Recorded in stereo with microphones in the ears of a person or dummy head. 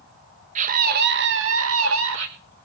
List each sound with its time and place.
0.6 s a scream: 40° right (ahead or behind), 1.6 m; by 2.3 s 70° right (ahead or behind), 1.7 m